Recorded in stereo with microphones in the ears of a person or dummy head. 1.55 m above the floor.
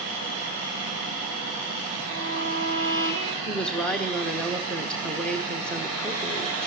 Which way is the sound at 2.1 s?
75° right (ahead or behind).